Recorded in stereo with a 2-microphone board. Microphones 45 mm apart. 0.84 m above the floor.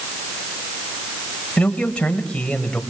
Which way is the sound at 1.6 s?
25° left (ahead or behind).